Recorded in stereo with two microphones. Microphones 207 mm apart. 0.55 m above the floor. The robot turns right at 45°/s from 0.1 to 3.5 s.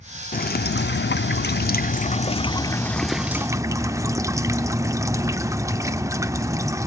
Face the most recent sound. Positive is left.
turn(degrees=-165)